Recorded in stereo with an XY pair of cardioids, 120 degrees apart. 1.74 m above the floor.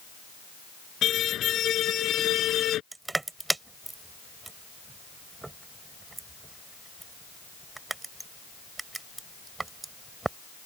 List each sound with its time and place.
1.0 s a car horn: 55° left; by 2.8 s 60° left
2.9 s crushing: 15° right